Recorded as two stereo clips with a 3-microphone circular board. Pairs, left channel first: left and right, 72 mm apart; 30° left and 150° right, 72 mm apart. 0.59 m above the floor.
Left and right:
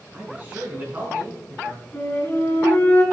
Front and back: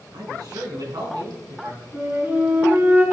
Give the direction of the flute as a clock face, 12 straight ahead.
7 o'clock.